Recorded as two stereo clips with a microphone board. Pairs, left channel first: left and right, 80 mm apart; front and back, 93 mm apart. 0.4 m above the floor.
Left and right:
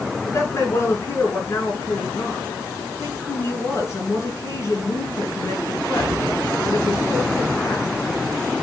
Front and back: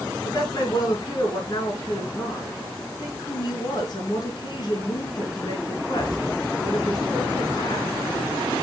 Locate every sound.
0.2 s a woman speaking: 40° left, 5.5 m